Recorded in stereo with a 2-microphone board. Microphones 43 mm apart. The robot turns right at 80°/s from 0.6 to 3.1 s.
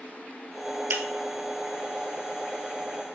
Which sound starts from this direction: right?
Breaking glass, at 0.9 s.